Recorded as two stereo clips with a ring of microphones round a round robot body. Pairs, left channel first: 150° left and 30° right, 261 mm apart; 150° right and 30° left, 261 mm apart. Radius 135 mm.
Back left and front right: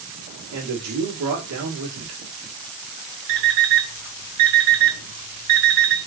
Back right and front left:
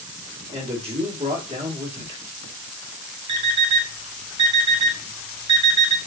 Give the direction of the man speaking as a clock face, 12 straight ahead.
1 o'clock.